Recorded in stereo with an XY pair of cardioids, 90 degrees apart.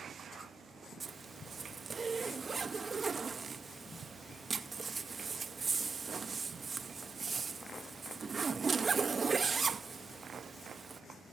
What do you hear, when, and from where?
1.0 s a zipper: 35° right, 0.7 m